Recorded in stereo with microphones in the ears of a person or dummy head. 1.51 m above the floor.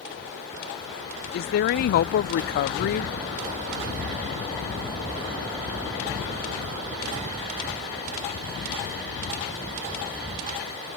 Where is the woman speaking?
55° left (ahead or behind).